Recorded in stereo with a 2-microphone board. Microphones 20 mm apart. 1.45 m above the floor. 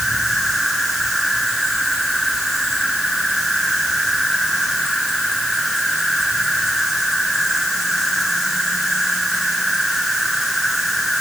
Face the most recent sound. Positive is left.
turn(degrees=-5)  # may be behind; listen again after turning